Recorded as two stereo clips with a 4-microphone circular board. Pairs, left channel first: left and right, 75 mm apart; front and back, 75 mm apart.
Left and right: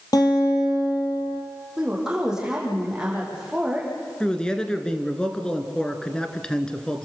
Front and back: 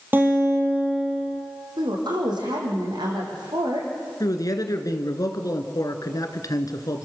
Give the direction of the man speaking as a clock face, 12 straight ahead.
12 o'clock.